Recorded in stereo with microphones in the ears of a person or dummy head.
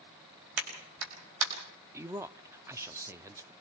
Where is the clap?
80° right, 5 m.